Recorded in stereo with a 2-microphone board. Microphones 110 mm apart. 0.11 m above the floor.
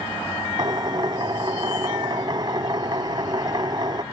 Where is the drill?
40° right (ahead or behind).